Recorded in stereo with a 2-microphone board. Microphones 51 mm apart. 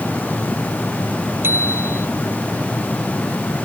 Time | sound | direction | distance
1.4 | a bicycle bell | 50° right (ahead or behind) | ?